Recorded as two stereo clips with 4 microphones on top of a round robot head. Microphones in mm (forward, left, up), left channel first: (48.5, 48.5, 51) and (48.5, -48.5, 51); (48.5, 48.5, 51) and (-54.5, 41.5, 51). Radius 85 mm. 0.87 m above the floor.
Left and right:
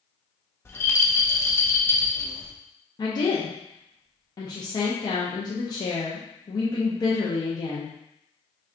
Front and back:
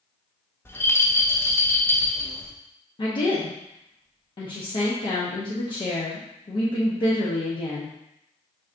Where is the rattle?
50° left, 1.0 m.